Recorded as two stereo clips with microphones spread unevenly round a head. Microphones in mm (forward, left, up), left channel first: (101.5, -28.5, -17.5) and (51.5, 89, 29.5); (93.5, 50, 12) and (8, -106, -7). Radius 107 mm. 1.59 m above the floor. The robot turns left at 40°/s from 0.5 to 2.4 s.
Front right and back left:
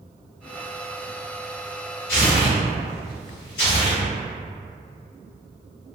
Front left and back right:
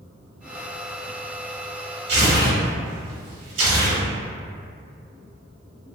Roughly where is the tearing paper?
Right.